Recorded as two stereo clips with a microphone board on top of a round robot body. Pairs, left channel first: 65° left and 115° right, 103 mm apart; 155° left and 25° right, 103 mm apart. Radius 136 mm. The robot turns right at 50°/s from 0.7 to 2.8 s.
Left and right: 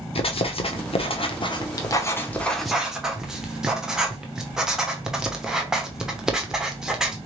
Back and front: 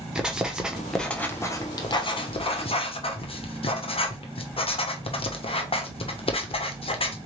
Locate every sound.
0.1 s writing: 60° left, 1.1 m; by 7.2 s 165° left, 1.1 m